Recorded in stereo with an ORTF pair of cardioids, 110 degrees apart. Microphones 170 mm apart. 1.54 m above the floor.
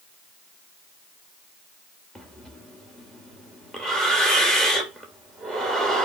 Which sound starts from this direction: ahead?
Breathing, at 2.1 s.